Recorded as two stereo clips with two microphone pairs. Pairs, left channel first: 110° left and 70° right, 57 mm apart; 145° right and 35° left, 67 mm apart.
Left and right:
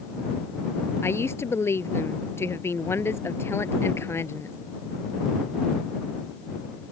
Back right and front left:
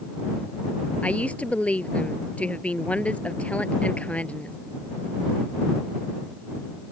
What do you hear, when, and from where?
1.0 s a woman speaking: 145° left